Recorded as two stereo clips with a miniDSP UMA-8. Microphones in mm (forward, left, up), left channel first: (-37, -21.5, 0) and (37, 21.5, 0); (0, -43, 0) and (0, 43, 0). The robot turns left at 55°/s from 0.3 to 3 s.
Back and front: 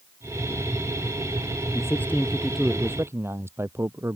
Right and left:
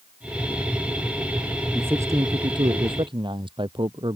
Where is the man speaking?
160° left; by 4.2 s 90° left.